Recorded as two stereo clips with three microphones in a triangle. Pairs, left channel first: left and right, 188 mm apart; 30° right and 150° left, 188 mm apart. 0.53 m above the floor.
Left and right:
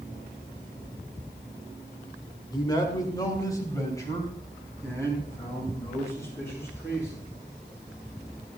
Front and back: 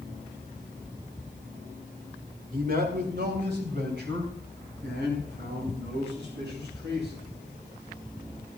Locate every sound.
2.5 s a man speaking: 150° left, 1.8 m; by 7.2 s 165° left, 8 m